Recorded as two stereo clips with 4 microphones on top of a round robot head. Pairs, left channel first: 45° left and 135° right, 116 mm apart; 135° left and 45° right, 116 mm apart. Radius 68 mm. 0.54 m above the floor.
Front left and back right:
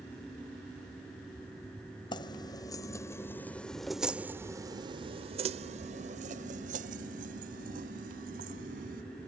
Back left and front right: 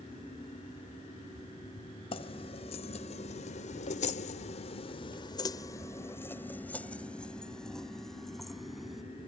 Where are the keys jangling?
95° left; by 9.0 s 130° right.